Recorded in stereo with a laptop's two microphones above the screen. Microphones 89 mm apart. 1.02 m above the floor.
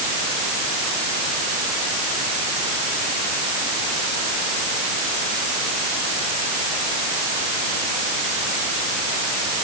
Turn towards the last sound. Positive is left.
No sound to turn to.